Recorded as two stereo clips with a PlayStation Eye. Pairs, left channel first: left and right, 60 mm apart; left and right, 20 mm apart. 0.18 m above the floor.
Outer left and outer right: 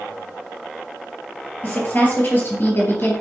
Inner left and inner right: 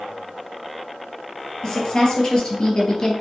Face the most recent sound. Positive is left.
turn(degrees=40)  # may be behind; listen again after turning